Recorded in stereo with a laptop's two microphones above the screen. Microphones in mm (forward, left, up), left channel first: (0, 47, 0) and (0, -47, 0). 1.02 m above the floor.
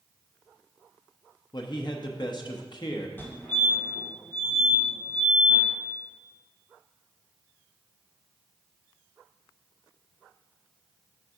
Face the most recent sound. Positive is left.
turn(degrees=20)  # may be behind; listen again after turning